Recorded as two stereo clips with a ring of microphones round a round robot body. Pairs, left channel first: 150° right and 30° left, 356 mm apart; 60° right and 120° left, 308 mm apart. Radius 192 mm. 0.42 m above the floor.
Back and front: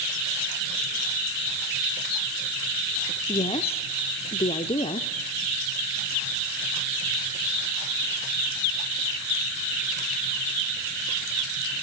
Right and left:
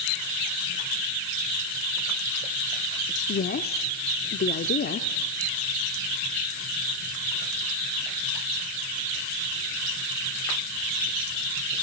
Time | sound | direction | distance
3.3 | a woman speaking | 90° right | 0.9 m